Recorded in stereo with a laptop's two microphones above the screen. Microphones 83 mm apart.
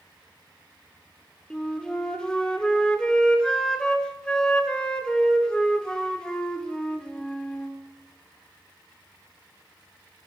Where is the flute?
10° left (ahead or behind), 3.5 m.